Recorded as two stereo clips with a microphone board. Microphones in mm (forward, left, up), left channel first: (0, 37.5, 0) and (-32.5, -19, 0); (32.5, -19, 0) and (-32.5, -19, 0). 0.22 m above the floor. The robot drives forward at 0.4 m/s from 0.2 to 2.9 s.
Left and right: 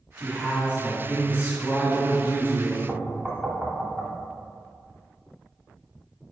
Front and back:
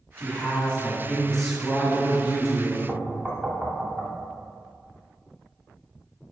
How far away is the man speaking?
About 1.8 m.